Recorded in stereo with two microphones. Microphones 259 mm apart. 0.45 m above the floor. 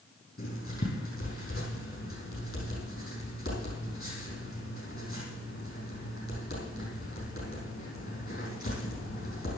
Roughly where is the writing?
Left.